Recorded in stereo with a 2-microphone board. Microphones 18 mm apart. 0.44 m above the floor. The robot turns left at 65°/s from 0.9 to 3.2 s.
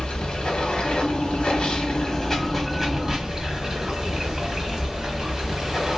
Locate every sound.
0.0 s running water: 115° left, 1.1 m; by 6.0 s 35° right, 1.1 m